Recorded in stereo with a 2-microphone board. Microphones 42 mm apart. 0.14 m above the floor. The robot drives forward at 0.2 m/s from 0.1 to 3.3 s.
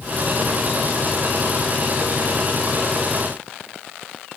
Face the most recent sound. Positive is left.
No sound to turn to.